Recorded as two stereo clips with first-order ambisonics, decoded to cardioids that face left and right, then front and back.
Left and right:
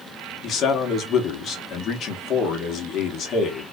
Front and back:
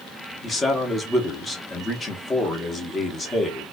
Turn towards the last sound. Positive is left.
turn(degrees=65)